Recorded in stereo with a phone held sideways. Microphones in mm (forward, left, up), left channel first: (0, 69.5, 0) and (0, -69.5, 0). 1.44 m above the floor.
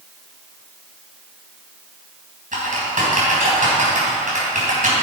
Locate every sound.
2.5 s typing on a keyboard: 75° right (ahead or behind), 3.5 m